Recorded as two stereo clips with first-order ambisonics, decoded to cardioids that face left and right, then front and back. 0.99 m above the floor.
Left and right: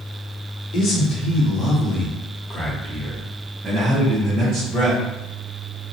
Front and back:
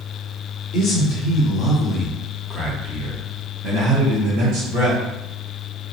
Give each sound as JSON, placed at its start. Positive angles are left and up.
{"t": 0.7, "sound": "a man speaking", "azimuth_deg": 50, "distance_m": 1.2}